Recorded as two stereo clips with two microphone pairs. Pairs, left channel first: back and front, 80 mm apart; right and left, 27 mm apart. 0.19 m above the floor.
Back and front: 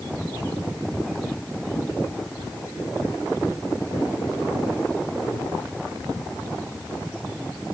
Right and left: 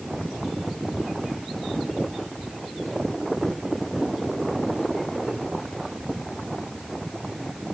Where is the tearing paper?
I don't hear tearing paper.